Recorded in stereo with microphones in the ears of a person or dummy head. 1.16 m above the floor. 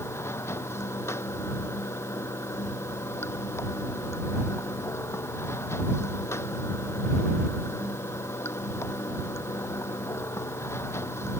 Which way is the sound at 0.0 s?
10° left (ahead or behind).